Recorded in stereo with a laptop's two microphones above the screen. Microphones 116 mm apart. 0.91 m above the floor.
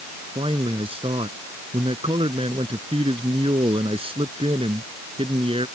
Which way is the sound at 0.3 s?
50° right (ahead or behind).